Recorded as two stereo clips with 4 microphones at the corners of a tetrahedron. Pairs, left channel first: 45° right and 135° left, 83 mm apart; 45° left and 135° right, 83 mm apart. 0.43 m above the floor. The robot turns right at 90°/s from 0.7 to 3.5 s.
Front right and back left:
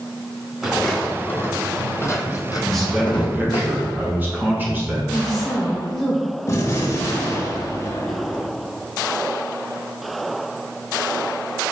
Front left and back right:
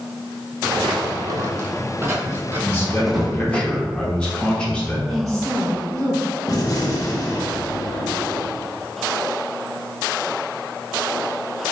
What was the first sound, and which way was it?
Footsteps, 140° right.